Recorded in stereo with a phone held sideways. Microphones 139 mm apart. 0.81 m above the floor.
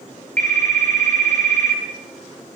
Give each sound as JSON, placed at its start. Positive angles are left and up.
{"t": 0.4, "sound": "a phone ringing", "side_deg": -65, "distance_m": 7.5}